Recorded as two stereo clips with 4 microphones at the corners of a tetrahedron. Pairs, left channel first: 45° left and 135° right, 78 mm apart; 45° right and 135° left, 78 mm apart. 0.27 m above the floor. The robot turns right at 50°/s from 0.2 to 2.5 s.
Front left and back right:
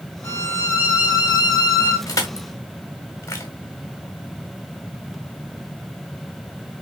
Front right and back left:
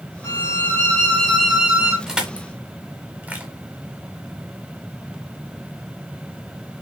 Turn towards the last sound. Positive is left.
turn(degrees=80)